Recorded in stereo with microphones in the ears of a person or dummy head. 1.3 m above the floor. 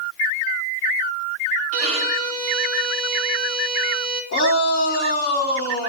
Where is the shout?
50° left (ahead or behind), 3 m.